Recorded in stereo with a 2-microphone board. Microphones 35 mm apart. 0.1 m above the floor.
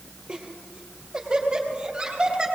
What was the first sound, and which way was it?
Laughter, 35° right (ahead or behind).